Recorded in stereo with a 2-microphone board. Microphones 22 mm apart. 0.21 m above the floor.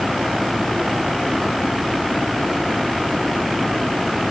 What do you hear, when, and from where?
Only background noise.